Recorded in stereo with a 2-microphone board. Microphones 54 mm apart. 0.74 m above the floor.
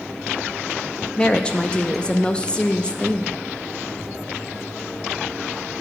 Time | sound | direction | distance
1.2 | a woman speaking | 20° left (ahead or behind) | 0.6 m